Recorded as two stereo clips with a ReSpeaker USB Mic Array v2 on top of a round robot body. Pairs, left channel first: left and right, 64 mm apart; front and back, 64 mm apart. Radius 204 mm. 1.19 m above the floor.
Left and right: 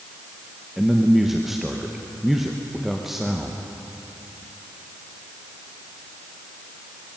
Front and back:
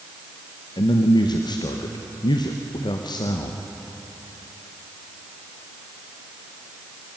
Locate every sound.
0.8 s a man speaking: 5° right, 1.0 m